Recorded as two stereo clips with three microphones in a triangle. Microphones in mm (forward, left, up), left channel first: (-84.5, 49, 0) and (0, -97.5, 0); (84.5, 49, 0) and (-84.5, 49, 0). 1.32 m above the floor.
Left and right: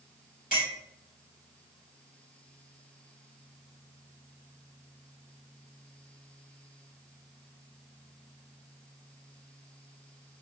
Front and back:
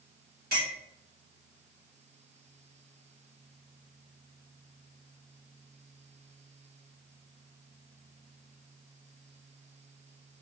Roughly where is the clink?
Behind left.